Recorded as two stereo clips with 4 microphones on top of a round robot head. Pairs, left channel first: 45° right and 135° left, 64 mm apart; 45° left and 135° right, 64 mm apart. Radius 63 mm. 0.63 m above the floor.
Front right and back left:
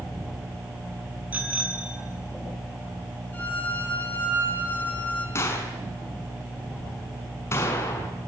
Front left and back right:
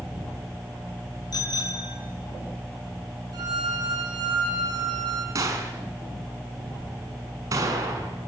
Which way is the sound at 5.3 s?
95° right.